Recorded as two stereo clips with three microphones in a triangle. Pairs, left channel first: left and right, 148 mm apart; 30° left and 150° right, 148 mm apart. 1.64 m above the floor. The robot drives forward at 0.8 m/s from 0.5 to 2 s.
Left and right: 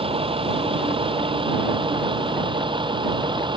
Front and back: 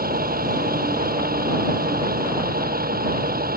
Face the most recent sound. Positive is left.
turn(degrees=-150)